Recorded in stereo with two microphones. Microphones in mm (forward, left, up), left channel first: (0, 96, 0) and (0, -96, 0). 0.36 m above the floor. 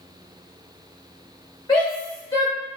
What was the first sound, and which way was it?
A shout, 25° left (ahead or behind).